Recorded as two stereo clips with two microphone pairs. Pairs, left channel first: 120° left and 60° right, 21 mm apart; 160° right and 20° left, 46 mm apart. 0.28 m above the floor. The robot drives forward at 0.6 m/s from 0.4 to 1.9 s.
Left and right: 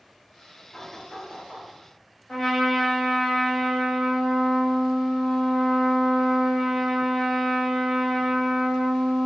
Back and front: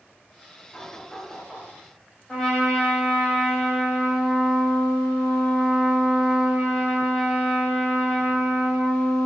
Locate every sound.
0.7 s knocking: 125° left, 1.7 m; by 1.7 s 140° left, 2 m
2.3 s a trumpet: 130° left, 1.4 m